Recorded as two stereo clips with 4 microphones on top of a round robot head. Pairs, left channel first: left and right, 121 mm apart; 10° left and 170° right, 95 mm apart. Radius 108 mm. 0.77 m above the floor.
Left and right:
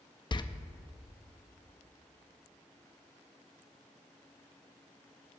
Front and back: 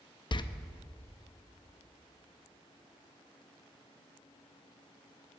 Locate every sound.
0.3 s a door slam: 40° left, 0.6 m